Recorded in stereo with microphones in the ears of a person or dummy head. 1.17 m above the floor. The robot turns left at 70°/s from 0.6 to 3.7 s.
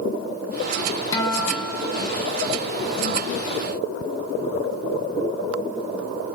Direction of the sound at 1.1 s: 15° left.